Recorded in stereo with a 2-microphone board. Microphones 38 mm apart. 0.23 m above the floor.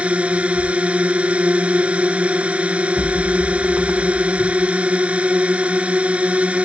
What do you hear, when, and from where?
0.0 s a drone: 35° right (ahead or behind)
3.0 s an explosion: 80° right